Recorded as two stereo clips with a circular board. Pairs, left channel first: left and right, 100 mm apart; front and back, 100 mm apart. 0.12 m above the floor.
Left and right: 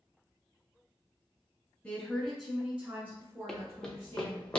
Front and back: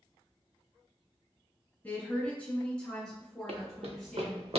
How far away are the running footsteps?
About 0.8 m.